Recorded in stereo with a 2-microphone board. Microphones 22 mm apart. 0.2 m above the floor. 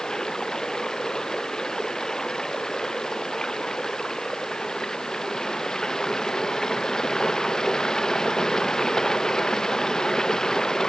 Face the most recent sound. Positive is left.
turn(degrees=35)  # may be behind; listen again after turning